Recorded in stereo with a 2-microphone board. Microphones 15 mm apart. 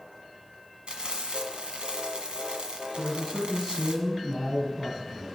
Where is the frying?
90° right, 1.5 m.